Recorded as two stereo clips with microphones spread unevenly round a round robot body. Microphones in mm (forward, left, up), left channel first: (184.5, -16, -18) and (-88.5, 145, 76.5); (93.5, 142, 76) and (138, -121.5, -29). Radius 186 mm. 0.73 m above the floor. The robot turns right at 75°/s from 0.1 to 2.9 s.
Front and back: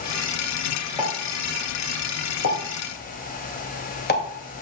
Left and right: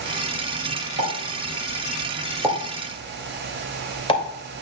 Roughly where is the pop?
Behind right.